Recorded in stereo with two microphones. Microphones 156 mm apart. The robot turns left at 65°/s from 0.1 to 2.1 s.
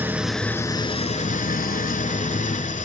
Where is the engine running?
165° right, 0.8 m; by 2.9 s 65° left, 0.8 m.